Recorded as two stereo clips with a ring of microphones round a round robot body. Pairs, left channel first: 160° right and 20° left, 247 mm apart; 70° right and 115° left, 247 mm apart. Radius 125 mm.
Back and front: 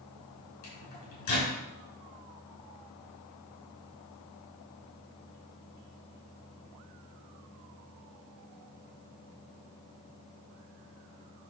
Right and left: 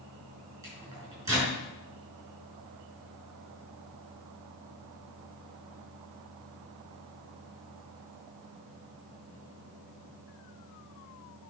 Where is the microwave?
170° right, 5 m.